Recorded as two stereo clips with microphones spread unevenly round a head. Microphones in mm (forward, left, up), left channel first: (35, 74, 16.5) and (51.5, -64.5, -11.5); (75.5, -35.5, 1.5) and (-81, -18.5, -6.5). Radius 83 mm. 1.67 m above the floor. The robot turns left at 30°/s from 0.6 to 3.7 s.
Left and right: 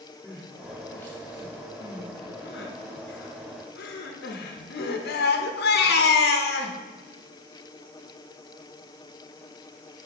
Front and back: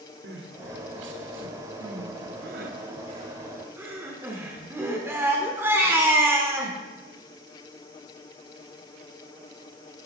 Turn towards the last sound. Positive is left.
turn(degrees=95)